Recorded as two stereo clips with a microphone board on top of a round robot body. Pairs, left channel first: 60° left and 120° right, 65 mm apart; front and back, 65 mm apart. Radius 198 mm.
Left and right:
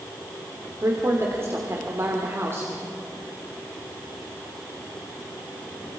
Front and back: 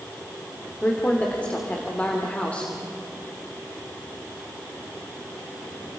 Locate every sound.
0.8 s a woman speaking: 70° right, 2.5 m